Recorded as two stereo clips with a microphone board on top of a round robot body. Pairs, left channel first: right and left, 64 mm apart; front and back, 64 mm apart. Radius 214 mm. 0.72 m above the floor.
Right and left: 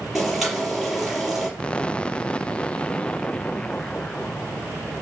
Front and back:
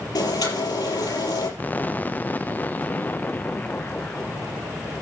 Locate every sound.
0.1 s boiling: 5° left, 5.5 m
1.6 s an explosion: 35° right, 0.9 m